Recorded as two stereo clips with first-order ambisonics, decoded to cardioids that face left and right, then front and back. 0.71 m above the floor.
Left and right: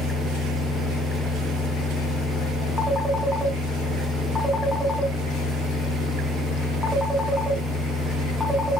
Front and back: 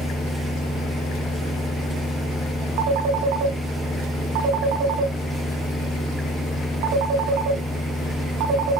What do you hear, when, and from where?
2.8 s a phone ringing: straight behind, 3 m